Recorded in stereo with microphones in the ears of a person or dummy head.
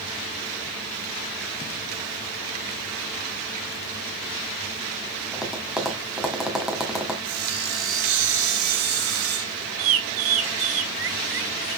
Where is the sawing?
90° right, 5.5 m.